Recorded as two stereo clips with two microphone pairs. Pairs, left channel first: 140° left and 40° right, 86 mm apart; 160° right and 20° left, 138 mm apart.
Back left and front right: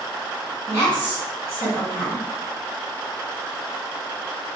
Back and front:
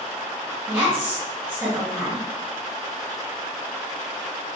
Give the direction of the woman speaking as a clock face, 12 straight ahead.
1 o'clock.